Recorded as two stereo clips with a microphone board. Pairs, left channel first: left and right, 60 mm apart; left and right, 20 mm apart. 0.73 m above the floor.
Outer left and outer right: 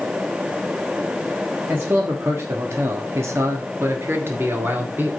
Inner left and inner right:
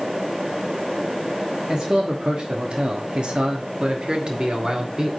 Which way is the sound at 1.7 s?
40° right (ahead or behind).